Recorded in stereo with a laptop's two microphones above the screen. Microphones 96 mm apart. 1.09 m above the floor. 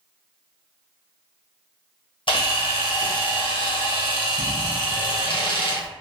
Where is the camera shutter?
65° left (ahead or behind), 0.7 m.